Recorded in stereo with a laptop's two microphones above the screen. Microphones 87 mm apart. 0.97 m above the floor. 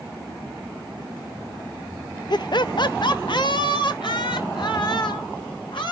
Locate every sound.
2.3 s laughter: 55° left (ahead or behind), 0.6 m; by 5.9 s 60° left (ahead or behind), 3 m